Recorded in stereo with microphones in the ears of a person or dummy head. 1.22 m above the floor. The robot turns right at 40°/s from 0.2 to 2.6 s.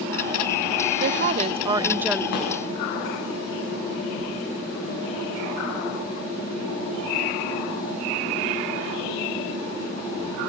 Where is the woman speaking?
50° right, 0.7 m; by 2.2 s straight ahead, 0.7 m.